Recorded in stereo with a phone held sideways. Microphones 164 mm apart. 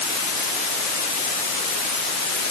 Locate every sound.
Only background noise.